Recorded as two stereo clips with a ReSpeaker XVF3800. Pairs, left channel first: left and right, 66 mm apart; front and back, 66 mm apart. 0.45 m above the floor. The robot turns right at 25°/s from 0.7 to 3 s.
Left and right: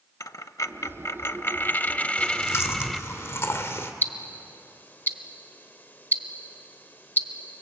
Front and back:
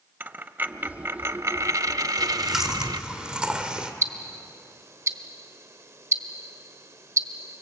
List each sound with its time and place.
0.2 s a dropped coin: 120° left, 0.6 m; by 3.0 s straight behind, 0.6 m
2.2 s chewing: 90° left, 1.6 m; by 3.9 s 110° left, 1.6 m
4.0 s ticking: 145° left, 0.9 m